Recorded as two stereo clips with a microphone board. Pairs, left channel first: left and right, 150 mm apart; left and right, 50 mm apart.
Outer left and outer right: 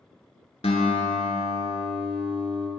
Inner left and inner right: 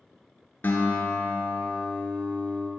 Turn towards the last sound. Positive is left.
turn(degrees=45)  # may be behind; listen again after turning